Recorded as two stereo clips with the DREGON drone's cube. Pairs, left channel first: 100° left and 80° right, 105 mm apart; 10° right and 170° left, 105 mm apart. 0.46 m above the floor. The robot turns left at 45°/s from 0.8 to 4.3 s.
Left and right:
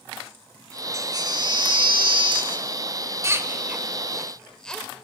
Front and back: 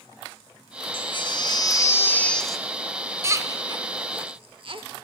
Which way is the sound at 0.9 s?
25° right.